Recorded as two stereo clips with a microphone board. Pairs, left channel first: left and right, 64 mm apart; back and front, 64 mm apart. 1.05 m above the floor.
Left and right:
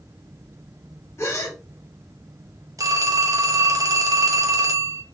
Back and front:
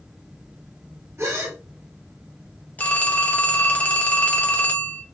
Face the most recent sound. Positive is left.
turn(degrees=-115)